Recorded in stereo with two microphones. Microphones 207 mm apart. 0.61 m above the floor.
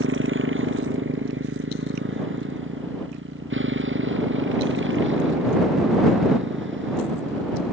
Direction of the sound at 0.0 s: 75° right (ahead or behind).